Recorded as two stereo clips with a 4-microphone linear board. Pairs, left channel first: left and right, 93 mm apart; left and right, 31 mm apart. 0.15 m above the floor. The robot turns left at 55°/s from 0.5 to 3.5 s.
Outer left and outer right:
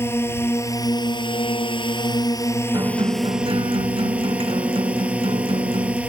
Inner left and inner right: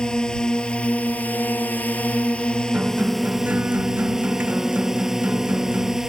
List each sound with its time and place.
0.0 s a drone: 150° left; by 6.1 s 15° right
2.7 s a guitar: 45° right; by 6.0 s 90° right